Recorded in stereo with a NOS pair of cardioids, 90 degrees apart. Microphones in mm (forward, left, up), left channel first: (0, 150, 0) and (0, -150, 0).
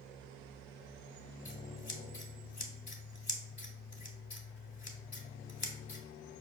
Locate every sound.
1.4 s scissors: 25° left, 0.8 m